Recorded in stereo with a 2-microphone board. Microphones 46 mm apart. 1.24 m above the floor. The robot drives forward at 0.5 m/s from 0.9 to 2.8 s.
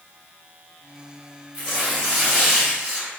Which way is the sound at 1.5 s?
30° right (ahead or behind).